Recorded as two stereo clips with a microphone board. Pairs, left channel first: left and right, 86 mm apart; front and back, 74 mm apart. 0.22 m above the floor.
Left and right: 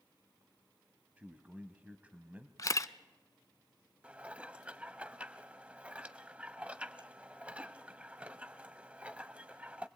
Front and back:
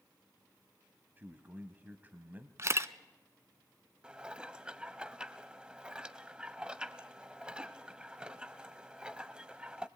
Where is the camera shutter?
135° left, 0.6 m.